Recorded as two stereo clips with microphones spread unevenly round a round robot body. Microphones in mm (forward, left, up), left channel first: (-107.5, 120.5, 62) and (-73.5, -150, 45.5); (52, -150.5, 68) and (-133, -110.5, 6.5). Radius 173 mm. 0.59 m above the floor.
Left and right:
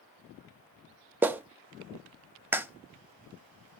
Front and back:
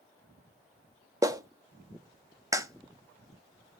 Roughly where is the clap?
Behind.